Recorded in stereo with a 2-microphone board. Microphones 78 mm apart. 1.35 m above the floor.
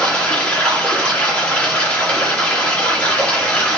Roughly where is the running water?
Centre.